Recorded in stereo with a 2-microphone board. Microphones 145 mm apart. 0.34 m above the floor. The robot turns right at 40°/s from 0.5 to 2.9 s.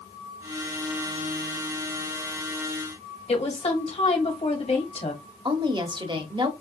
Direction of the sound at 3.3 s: 45° left (ahead or behind).